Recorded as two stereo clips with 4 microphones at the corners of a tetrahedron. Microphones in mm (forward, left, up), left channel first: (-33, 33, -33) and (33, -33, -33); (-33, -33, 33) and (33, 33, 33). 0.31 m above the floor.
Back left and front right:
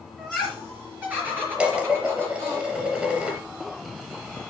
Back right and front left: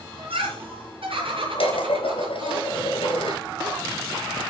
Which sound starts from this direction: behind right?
Dishes clattering, at 1.6 s.